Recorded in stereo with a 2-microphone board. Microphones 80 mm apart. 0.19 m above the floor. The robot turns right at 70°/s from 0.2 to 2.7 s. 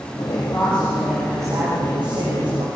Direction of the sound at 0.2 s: 130° left.